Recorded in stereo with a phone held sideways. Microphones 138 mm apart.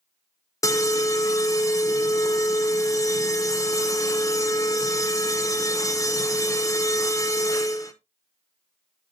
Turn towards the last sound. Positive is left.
turn(degrees=25)  # may be behind; listen again after turning